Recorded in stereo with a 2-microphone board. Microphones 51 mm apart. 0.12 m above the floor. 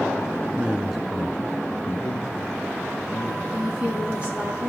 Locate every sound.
0.5 s a man speaking: 25° right (ahead or behind), 1.4 m; by 3.4 s 60° left (ahead or behind), 4 m
3.5 s a woman speaking: 20° right (ahead or behind), 6.5 m